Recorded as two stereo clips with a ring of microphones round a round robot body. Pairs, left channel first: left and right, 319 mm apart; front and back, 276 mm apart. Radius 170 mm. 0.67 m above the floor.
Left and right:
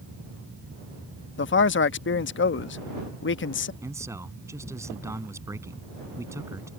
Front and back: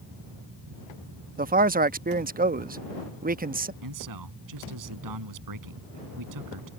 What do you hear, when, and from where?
1.4 s a man speaking: 130° left
3.8 s a man speaking: 170° right